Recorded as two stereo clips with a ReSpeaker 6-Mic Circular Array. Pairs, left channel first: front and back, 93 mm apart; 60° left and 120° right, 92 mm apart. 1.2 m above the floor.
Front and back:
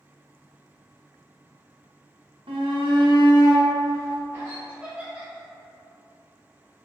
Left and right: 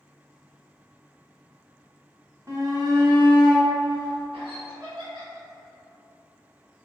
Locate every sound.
2.5 s a shout: 175° right, 1.0 m; by 4.6 s 115° right, 1.5 m
4.7 s laughter: 105° right, 1.6 m